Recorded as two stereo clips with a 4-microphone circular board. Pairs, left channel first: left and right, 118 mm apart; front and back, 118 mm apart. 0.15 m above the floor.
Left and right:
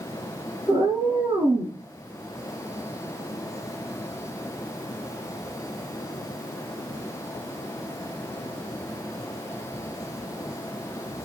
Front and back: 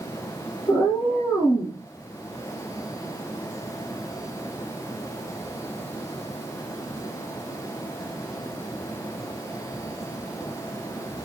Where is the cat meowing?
70° right, 1.1 m.